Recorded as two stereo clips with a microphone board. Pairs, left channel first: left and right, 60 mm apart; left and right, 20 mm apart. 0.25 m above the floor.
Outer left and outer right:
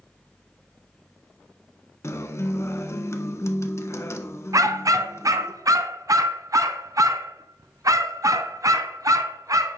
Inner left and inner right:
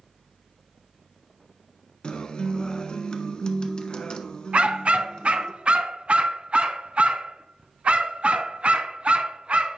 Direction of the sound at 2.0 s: 50° left (ahead or behind).